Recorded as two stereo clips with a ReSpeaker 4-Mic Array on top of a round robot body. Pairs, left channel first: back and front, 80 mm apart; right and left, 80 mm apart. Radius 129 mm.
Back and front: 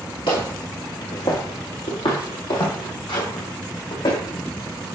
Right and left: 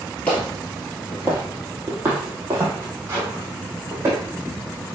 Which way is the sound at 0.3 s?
160° right.